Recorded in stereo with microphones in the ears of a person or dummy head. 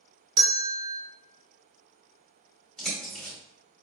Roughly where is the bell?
Right.